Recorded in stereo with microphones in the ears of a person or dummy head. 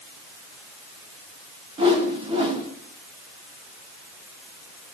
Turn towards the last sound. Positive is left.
turn(degrees=-30)  # may be behind; listen again after turning